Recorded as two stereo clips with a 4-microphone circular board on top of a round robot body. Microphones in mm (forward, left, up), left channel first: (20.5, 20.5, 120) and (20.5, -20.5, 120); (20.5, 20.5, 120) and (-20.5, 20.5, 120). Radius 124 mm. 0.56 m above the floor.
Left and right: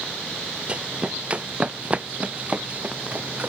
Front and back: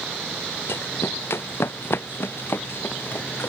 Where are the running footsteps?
25° right; by 3.5 s 35° right.